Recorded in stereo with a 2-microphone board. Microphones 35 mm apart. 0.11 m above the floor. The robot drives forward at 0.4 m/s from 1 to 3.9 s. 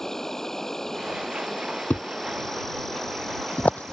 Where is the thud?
65° left (ahead or behind); by 3.9 s 45° left (ahead or behind).